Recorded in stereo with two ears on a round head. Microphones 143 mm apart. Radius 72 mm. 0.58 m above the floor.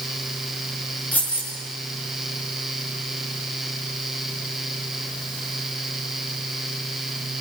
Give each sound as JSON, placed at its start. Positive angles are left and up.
{"t": 1.1, "sound": "keys jangling", "side_deg": 10, "distance_m": 6.5}